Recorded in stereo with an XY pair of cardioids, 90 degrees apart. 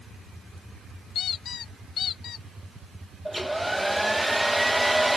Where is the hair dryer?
10° right.